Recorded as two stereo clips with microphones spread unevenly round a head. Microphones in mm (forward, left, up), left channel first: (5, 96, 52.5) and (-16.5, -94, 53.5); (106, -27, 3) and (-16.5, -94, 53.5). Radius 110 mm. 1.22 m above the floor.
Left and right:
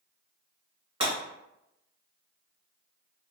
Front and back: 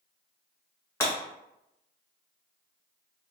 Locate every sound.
1.0 s breaking glass: 65° right, 1.2 m